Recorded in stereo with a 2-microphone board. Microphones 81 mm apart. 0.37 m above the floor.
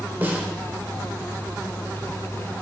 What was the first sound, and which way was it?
A snare drum, 25° right (ahead or behind).